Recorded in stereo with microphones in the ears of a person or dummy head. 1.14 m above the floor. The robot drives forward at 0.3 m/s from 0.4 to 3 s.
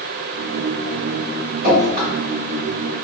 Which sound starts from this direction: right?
Dripping, at 1.6 s.